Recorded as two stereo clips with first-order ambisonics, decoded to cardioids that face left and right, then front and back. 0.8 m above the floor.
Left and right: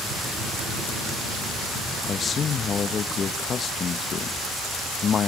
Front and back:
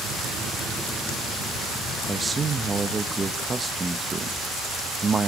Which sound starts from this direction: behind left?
A man speaking, at 2.1 s.